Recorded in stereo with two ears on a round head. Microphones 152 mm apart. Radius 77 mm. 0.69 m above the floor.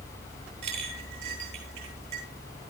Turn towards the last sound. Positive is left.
turn(degrees=-40)  # may be behind; listen again after turning